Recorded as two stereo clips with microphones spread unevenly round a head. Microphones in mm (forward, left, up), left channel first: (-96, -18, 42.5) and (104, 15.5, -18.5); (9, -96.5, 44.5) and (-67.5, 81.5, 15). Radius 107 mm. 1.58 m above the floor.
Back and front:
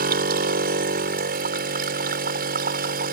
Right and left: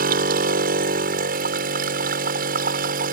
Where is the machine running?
60° left.